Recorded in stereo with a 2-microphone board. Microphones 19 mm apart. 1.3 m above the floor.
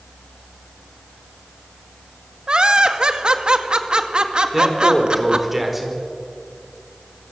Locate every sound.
2.5 s laughter: 50° right (ahead or behind), 2.0 m
4.5 s a man speaking: 10° right (ahead or behind), 5 m